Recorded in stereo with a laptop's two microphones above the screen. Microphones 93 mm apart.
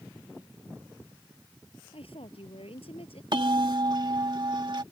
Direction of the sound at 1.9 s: 80° left.